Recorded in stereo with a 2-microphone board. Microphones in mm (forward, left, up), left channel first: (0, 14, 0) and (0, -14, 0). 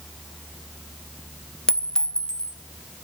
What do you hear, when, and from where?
1.7 s a clink: 25° left (ahead or behind), 0.6 m